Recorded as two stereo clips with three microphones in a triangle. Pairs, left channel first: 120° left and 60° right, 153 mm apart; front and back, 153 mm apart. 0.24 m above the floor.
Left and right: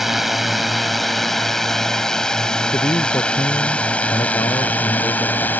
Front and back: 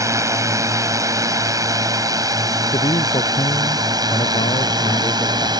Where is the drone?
145° right; by 5.6 s 175° right.